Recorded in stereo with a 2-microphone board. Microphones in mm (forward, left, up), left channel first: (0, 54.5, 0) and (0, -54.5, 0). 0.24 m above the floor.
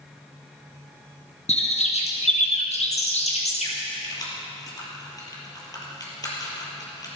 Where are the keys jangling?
35° left (ahead or behind), 3.5 m.